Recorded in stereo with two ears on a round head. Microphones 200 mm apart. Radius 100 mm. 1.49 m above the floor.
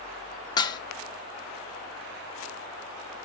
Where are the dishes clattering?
20° left (ahead or behind), 0.5 m.